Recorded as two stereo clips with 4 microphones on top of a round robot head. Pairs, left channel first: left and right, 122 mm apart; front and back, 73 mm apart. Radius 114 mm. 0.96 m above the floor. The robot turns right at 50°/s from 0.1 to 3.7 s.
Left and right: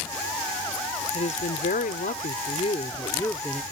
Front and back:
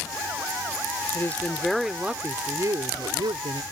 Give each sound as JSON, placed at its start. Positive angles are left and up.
{"t": 1.1, "sound": "a woman speaking", "azimuth_deg": 60}